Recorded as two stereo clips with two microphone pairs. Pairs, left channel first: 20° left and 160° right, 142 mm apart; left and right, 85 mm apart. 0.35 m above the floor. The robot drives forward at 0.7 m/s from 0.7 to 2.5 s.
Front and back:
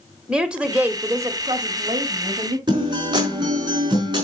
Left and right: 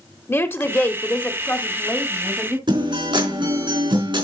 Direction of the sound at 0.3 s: 120° left.